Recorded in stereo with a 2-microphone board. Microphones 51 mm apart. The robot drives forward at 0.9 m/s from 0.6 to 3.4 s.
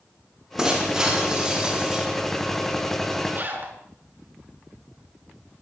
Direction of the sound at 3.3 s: 35° right (ahead or behind).